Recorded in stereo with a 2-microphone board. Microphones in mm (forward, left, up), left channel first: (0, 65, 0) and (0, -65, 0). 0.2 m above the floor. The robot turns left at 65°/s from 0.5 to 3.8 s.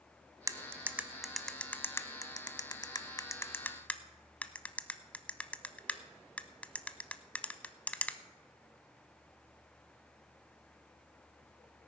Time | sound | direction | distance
0.5 | cutlery clinking | 25° right (ahead or behind) | 0.7 m